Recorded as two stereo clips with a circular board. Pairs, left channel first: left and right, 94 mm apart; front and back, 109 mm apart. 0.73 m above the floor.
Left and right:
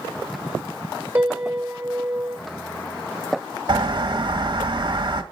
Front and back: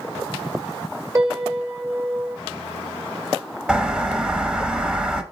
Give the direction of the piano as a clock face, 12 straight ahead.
5 o'clock.